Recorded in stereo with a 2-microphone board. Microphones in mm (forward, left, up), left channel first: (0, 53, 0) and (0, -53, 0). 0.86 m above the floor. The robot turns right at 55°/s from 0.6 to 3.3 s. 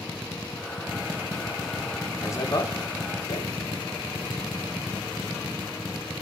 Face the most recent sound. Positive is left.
turn(degrees=75)  # may be behind; listen again after turning